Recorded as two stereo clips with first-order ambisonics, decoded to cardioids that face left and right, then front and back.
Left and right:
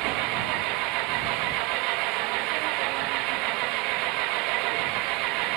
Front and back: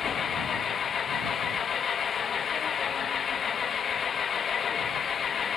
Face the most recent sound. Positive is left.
turn(degrees=-65)